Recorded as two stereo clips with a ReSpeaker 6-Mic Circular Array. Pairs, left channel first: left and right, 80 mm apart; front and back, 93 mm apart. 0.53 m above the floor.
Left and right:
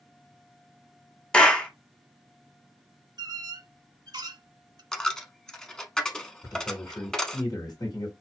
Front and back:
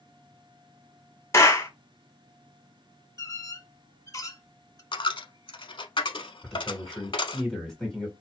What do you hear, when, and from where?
1.3 s a clap: 25° left, 0.9 m
3.2 s a squeak: 55° right, 0.5 m
4.9 s a dropped coin: 10° left, 0.7 m
6.4 s a man speaking: 85° left, 2 m